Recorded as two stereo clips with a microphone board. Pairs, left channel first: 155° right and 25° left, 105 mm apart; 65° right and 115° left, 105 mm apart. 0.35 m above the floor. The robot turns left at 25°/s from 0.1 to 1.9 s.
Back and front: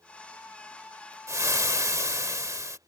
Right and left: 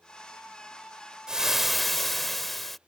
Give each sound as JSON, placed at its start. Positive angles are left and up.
{"t": 1.3, "sound": "frying", "azimuth_deg": 35}